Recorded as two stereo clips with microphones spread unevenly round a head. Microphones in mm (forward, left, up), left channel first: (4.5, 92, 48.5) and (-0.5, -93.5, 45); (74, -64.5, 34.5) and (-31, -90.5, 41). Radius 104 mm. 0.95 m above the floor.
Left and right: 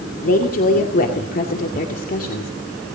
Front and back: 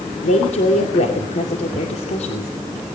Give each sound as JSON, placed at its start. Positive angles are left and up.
{"t": 0.2, "sound": "a woman speaking", "azimuth_deg": 45, "distance_m": 2.0}